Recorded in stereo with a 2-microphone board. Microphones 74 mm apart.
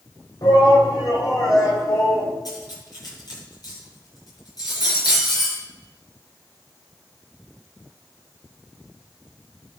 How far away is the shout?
About 4.5 m.